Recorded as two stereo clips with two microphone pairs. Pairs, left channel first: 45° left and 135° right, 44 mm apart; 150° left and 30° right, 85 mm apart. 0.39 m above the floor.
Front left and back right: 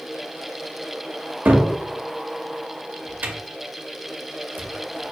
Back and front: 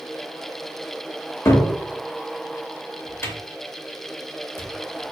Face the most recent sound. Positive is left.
turn(degrees=-165)